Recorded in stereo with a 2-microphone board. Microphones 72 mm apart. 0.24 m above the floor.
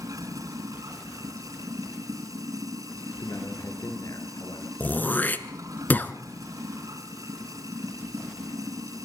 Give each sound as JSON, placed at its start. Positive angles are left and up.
{"t": 0.0, "sound": "running water", "side_deg": -55, "distance_m": 2.0}
{"t": 3.2, "sound": "a man speaking", "side_deg": 60, "distance_m": 4.0}
{"t": 4.8, "sound": "throat clearing", "side_deg": 25, "distance_m": 1.1}